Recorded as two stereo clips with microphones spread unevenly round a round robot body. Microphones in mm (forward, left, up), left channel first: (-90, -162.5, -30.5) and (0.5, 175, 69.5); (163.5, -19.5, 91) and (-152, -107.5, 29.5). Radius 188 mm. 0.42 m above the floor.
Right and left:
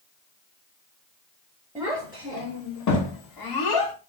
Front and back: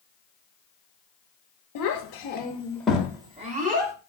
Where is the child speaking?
15° right, 0.7 m; by 3.9 s 105° right, 1.2 m.